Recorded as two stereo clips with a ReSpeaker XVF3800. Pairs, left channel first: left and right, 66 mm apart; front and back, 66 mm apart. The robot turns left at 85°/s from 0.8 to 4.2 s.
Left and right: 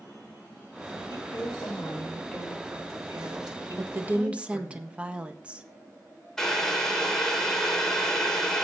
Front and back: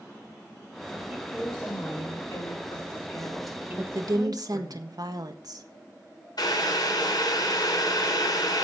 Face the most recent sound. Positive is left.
turn(degrees=10)